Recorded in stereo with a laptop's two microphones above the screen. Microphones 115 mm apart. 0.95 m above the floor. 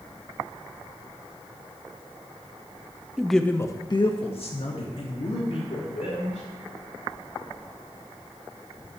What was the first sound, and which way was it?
A man speaking, 10° right (ahead or behind).